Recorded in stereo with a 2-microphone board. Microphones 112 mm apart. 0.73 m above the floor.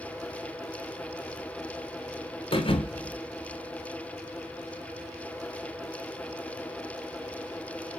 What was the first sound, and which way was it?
A thud, 50° left (ahead or behind).